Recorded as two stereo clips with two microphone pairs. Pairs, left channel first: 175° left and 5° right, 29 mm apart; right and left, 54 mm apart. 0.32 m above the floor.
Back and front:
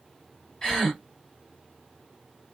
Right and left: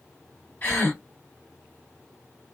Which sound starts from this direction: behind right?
A gasp, at 0.6 s.